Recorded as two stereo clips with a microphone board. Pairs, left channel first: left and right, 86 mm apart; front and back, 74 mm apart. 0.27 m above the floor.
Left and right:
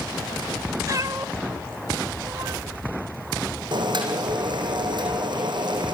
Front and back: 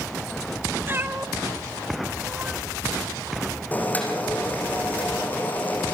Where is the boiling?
65° right, 6.5 m.